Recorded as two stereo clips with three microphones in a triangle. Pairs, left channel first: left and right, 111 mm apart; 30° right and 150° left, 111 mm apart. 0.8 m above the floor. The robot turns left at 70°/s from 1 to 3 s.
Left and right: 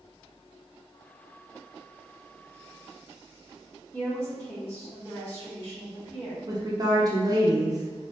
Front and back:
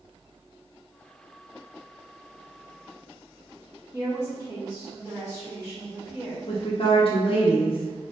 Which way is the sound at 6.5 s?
40° right.